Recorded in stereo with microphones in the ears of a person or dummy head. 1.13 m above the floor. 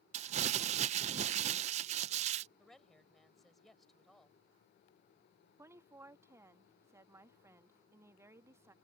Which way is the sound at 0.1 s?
45° right (ahead or behind).